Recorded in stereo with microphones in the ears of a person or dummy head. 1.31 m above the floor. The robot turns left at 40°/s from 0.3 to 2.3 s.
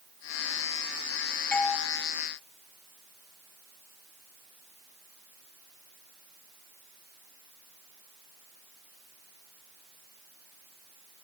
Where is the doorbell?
10° left (ahead or behind), 3.5 m; by 1.8 s centre (ahead or behind), 3.5 m.